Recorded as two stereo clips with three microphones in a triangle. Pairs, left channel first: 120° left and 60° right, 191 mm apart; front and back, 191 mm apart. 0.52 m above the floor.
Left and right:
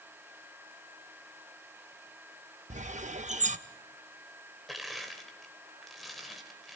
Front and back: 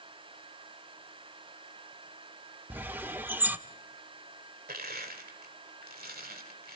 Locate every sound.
2.7 s a bird: 100° right, 0.6 m
4.7 s crushing: 150° right, 2 m